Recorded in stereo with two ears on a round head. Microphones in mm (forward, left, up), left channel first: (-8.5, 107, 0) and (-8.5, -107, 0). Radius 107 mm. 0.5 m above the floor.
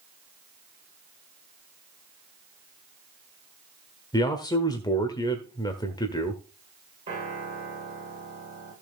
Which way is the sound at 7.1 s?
25° right (ahead or behind).